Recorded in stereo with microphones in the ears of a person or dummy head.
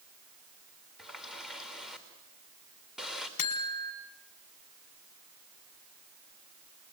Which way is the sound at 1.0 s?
5° right (ahead or behind).